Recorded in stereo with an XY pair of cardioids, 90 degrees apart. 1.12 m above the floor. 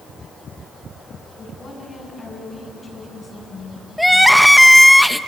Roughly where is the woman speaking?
Ahead left.